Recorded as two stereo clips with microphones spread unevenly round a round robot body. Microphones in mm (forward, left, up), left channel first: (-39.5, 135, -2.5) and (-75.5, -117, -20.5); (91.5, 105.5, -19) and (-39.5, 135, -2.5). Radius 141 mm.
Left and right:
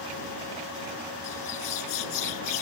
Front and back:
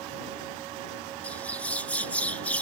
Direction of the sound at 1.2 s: 70° left.